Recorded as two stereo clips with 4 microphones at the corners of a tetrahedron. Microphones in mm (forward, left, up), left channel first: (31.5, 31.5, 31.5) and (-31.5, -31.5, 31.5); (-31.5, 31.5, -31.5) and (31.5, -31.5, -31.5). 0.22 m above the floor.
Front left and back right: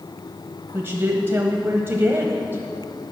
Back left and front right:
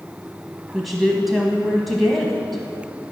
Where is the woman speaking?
135° right, 1.0 m.